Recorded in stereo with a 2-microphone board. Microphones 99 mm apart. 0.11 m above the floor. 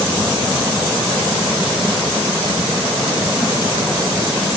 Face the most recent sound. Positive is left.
No sound to turn to.